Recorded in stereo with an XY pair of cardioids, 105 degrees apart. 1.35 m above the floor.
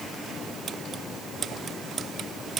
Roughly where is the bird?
No bird in this recording.